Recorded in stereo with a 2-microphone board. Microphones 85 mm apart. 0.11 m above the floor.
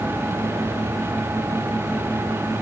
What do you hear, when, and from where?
Only background noise.